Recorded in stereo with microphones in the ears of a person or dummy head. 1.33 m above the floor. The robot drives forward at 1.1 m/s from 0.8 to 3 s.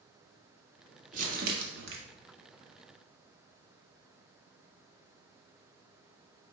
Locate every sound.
1.1 s crumpling: 50° right (ahead or behind), 1.8 m; by 2.0 s 75° right (ahead or behind), 1.4 m